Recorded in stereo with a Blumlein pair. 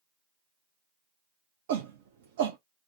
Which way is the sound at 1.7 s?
55° right.